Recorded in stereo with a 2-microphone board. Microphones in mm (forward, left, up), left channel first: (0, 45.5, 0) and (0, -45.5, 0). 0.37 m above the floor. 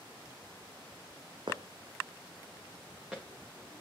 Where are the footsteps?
60° right (ahead or behind), 1.0 m; by 3.2 s 10° right (ahead or behind), 2 m.